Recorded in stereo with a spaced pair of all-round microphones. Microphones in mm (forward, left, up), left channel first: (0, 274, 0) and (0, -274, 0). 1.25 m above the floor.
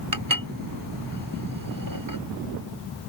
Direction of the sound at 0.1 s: 35° right (ahead or behind).